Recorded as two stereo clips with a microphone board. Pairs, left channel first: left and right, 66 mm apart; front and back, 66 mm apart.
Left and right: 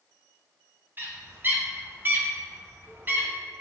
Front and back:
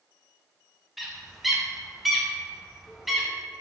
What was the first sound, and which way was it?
A bird, 95° right.